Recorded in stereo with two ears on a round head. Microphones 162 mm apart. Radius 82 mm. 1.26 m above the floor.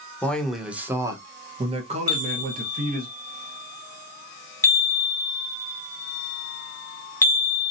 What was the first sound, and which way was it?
A man speaking, 10° left (ahead or behind).